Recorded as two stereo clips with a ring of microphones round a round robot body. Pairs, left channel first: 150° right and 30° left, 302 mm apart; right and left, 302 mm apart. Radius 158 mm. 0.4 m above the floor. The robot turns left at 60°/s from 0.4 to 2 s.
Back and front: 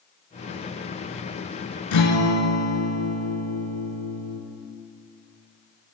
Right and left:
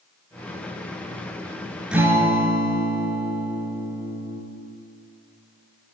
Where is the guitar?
175° left, 1.1 m; by 4.4 s 170° left, 1.1 m.